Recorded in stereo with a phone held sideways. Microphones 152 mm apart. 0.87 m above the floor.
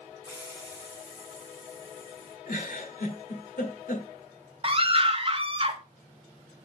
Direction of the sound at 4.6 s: 40° right (ahead or behind).